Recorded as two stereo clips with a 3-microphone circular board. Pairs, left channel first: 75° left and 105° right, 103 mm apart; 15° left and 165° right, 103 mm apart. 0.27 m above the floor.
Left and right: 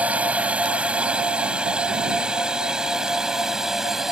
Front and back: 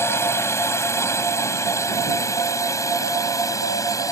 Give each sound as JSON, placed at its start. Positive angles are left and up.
{"t": 0.0, "sound": "a drone", "azimuth_deg": -35}